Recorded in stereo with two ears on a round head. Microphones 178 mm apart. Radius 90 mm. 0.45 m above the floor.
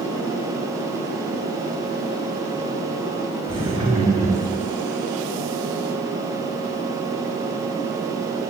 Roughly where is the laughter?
Right.